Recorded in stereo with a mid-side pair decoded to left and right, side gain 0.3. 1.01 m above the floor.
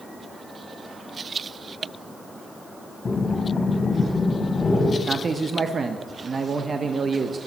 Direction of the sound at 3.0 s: 50° left.